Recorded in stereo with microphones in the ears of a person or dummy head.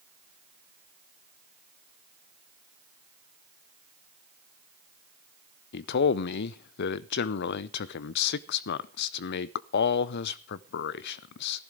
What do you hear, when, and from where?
5.7 s a man speaking: 55° left (ahead or behind), 0.6 m